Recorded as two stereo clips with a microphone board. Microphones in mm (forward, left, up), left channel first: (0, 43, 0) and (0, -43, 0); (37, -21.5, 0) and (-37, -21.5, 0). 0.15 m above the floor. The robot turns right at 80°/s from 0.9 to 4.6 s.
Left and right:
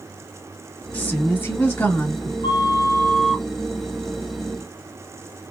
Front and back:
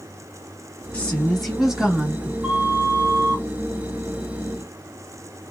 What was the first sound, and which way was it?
A woman speaking, 45° left.